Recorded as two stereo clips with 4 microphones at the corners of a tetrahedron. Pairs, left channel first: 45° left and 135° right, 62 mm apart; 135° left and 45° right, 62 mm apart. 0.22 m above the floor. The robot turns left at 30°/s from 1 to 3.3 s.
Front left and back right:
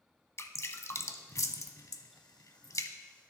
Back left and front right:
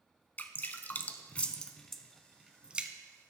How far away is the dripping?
About 0.6 m.